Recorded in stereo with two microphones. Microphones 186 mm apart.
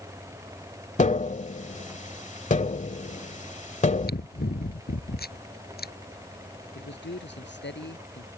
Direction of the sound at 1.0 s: 40° left (ahead or behind).